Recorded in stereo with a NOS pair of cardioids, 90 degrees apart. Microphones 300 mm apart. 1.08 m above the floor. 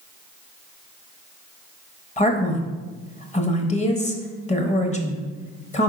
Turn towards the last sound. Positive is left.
turn(degrees=25)